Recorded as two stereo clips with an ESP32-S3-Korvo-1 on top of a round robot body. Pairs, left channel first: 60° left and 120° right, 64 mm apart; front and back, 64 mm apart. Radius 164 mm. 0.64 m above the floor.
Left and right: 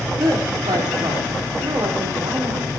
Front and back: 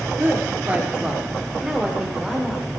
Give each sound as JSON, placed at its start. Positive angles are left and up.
{"t": 0.2, "sound": "a woman speaking", "azimuth_deg": -120, "distance_m": 2.5}